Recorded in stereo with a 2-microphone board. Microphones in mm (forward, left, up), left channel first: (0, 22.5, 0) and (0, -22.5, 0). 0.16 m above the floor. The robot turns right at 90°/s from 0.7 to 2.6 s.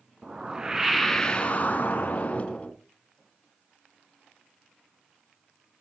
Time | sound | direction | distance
0.2 | a whoosh | 25° right | 0.9 m